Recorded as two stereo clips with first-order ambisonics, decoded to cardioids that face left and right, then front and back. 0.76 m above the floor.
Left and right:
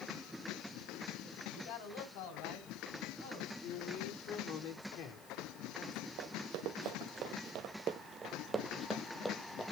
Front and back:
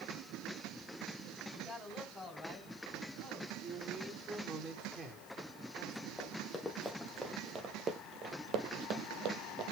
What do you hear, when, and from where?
1.5 s a man speaking: 95° left, 3.5 m; by 3.5 s 90° left, 6 m
3.6 s a man speaking: 115° left, 2.5 m
6.2 s running footsteps: 80° right, 1.5 m; by 9.7 s 165° left, 1.4 m